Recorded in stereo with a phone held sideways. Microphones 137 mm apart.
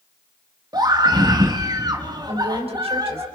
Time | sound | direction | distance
0.7 | a scream | 30° right (ahead or behind) | 1.5 m
2.3 | a woman speaking | 45° right (ahead or behind) | 4.5 m